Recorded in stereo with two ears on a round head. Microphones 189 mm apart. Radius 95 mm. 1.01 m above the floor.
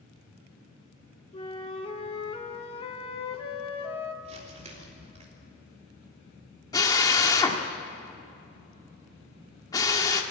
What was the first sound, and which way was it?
A flute, 25° left (ahead or behind).